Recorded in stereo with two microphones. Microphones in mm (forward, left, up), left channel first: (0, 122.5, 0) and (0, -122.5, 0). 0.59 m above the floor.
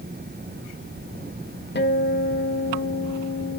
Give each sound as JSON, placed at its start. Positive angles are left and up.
{"t": 1.8, "sound": "a guitar", "side_deg": 45, "distance_m": 0.8}